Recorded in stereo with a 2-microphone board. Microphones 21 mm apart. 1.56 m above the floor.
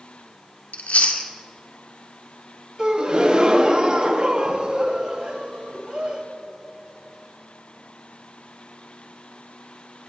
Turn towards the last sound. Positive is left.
turn(degrees=-40)  # may be behind; listen again after turning